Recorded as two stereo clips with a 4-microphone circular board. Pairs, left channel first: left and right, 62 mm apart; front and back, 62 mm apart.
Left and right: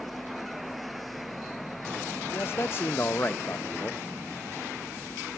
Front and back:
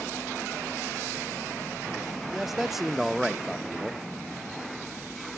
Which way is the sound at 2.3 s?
95° left.